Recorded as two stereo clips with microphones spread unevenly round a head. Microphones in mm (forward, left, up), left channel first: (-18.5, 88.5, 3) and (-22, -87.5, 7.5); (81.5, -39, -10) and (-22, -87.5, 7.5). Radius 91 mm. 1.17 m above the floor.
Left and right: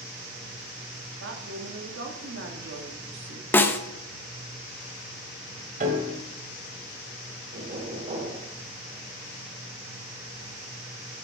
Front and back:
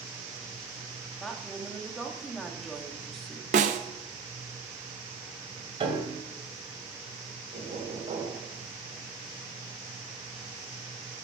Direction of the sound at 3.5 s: 170° left.